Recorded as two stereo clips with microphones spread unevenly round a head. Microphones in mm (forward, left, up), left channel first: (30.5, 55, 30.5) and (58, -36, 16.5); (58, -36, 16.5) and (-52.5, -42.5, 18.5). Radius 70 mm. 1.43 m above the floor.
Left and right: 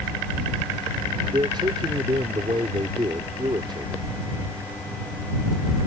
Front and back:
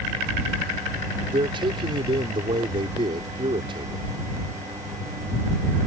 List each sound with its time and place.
1.3 s a man speaking: 135° right